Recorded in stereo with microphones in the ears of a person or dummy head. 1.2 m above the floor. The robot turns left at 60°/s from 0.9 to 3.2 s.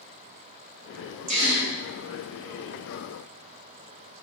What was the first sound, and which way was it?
A gasp, 35° right (ahead or behind).